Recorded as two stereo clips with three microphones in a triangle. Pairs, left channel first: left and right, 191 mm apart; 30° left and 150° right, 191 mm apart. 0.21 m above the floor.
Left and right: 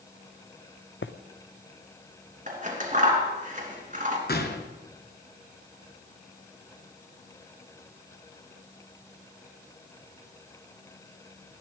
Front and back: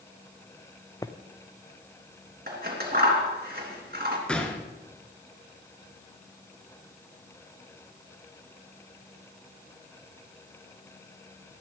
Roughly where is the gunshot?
Behind left.